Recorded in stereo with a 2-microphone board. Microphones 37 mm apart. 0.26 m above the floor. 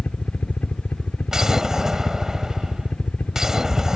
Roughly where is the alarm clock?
No alarm clock in this recording.